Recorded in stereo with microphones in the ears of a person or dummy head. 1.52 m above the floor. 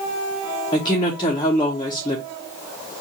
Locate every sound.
0.7 s a woman speaking: 35° left (ahead or behind), 0.9 m